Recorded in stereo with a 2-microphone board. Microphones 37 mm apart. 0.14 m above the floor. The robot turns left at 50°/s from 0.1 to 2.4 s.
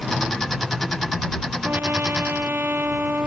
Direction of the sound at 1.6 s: 75° right.